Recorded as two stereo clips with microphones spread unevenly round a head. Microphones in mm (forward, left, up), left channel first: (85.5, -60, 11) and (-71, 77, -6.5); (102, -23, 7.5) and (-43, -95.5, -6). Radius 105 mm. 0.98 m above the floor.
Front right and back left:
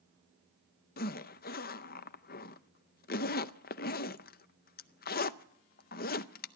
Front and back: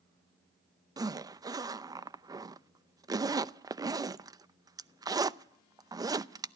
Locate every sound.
1.0 s a zipper: 90° right, 0.6 m